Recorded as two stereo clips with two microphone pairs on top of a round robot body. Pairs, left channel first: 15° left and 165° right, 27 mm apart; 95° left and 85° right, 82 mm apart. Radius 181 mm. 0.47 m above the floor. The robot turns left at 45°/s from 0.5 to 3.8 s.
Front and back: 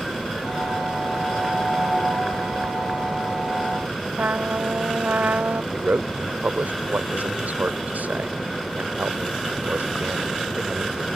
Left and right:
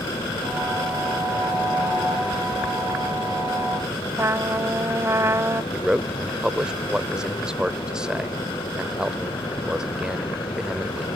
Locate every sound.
4.2 s a trumpet: 145° right
5.7 s a man speaking: 165° right